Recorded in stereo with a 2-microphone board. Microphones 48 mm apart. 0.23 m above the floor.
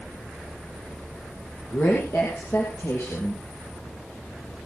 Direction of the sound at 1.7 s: 65° left (ahead or behind).